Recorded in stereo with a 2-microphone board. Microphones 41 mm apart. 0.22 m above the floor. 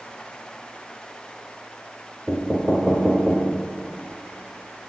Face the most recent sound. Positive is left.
turn(degrees=-10)  # may be behind; listen again after turning